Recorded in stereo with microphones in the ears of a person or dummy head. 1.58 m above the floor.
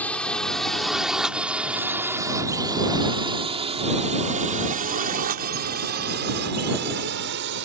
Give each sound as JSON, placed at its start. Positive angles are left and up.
{"t": 0.0, "sound": "a drone", "side_deg": 10}